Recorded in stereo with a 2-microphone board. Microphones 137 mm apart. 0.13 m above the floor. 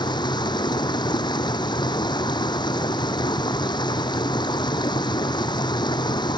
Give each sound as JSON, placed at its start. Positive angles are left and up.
{"t": 0.0, "sound": "running water", "side_deg": 35}